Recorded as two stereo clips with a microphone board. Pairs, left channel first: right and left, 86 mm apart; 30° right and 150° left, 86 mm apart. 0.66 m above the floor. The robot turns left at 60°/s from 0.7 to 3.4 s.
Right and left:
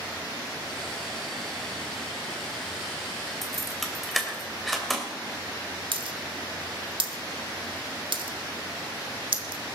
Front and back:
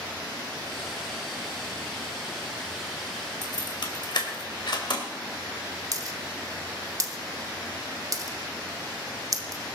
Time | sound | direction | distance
3.4 | keys jangling | straight ahead | 2.5 m
5.9 | a dropped coin | 105° left | 1.1 m